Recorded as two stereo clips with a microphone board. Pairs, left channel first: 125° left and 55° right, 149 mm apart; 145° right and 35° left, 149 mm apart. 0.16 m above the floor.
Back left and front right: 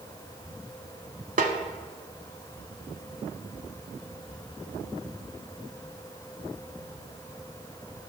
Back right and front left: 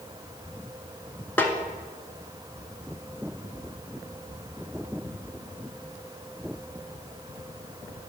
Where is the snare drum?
70° right, 0.6 m.